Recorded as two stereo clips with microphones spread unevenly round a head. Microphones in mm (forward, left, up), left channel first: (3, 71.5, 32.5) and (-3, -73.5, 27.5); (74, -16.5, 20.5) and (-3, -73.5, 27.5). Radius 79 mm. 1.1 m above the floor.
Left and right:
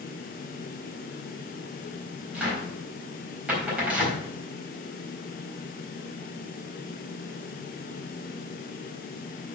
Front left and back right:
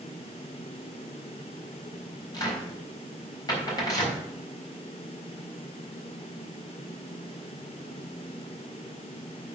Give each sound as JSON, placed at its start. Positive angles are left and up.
{"t": 2.3, "sound": "a cupboard door", "azimuth_deg": -10, "distance_m": 4.0}